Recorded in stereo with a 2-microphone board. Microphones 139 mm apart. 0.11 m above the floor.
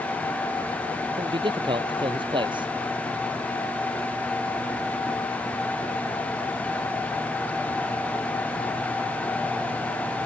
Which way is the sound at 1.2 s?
35° right (ahead or behind).